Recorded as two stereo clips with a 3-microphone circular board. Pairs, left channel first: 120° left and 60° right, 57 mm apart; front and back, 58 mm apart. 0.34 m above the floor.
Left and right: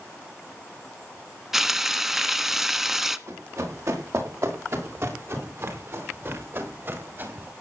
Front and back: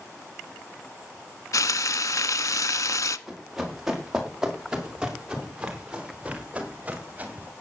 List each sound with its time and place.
1.5 s frying: 25° left, 0.8 m
3.3 s running footsteps: 95° right, 7 m; by 7.5 s 115° right, 5 m